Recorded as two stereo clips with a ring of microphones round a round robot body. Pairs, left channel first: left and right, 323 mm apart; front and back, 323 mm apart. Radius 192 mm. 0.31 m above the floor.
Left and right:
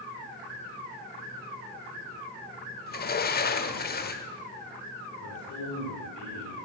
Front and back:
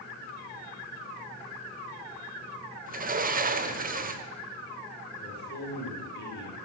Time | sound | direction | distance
2.9 | a sliding door | 130° left | 0.8 m
5.2 | a man speaking | 55° left | 4.5 m